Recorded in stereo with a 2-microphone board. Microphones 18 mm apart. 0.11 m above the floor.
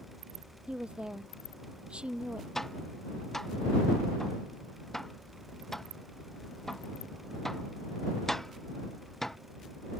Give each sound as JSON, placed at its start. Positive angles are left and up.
{"t": 0.7, "sound": "a woman speaking", "side_deg": -65}
{"t": 2.5, "sound": "tapping", "side_deg": 15}